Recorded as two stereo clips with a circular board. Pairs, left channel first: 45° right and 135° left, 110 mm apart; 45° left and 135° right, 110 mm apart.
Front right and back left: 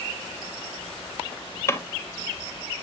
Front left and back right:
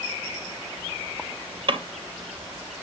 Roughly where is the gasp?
No gasp in this recording.